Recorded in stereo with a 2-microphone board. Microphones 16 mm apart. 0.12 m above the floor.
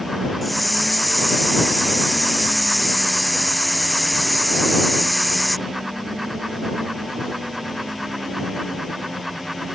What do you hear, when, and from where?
0.4 s a hiss: 5° left (ahead or behind)